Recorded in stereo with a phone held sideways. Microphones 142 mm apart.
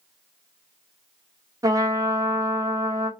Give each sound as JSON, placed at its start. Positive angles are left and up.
{"t": 1.6, "sound": "a trumpet", "side_deg": -25, "distance_m": 0.5}